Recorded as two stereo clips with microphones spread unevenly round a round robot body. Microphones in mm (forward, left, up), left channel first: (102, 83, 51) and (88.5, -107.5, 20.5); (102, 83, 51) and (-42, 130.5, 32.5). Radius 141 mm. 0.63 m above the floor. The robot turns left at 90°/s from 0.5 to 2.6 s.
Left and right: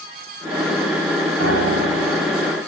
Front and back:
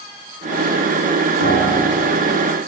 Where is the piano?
70° right, 4 m; by 2.5 s 165° right, 4 m.